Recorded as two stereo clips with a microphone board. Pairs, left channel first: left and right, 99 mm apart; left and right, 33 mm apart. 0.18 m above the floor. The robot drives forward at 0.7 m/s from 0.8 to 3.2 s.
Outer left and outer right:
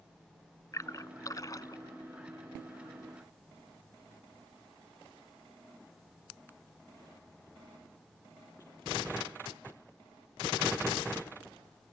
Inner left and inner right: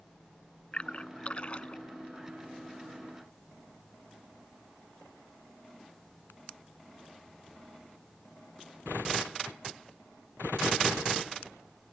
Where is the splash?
35° left (ahead or behind); by 1.8 s 40° left (ahead or behind).